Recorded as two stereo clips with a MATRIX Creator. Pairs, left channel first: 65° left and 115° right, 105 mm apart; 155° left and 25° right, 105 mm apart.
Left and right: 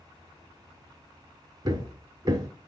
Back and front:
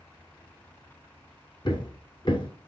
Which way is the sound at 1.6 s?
165° right.